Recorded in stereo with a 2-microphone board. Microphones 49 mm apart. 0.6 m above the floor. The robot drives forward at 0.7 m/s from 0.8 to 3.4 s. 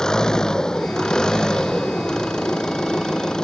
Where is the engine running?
15° left (ahead or behind).